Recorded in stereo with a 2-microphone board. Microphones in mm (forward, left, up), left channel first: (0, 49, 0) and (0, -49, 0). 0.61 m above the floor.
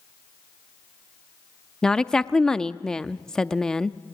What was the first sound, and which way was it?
A woman speaking, 5° left (ahead or behind).